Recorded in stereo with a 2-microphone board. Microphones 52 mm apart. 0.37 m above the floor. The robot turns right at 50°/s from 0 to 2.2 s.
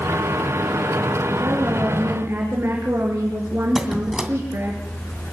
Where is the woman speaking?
90° right, 5 m; by 4.8 s 50° right, 5 m.